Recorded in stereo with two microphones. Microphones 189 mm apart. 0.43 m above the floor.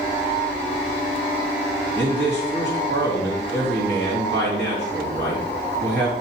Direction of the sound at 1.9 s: 70° right (ahead or behind).